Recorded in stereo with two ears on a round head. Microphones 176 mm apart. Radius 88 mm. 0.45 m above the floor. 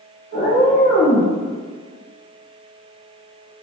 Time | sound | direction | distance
0.3 | a cat meowing | 75° left (ahead or behind) | 1.8 m